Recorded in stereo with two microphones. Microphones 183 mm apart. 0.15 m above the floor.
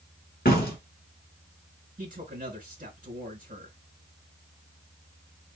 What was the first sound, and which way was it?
A door slam, 50° left (ahead or behind).